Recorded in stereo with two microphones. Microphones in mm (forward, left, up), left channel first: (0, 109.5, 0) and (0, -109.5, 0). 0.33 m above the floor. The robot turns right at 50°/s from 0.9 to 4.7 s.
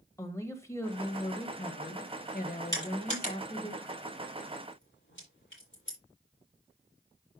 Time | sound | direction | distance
0.2 | a woman speaking | 20° left | 1.9 m
2.7 | crushing | 15° left (ahead or behind) | 7.5 m